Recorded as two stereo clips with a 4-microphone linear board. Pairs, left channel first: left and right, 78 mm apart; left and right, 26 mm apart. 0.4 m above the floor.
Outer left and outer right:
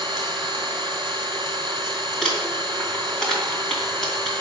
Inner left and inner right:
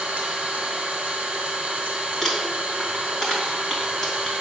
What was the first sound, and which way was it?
An engine running, 55° right (ahead or behind).